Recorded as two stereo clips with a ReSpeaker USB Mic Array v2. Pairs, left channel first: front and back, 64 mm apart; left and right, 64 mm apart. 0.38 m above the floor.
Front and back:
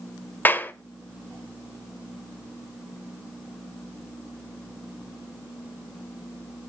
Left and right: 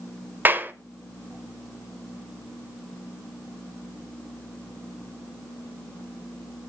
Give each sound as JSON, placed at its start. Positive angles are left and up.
{"t": 0.5, "sound": "a clap", "azimuth_deg": -45, "distance_m": 1.0}